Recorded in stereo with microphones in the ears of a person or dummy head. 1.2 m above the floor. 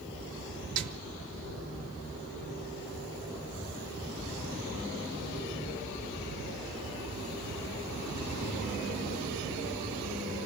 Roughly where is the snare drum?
Right.